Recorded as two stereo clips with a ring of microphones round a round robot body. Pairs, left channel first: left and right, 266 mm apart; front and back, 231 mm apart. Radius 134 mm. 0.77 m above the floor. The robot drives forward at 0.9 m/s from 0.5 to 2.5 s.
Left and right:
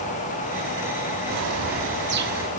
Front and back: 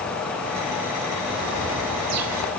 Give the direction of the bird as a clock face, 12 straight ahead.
4 o'clock.